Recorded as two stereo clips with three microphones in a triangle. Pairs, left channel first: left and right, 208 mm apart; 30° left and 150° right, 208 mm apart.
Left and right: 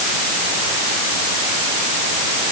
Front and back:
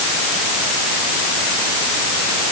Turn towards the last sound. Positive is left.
No sound to turn to.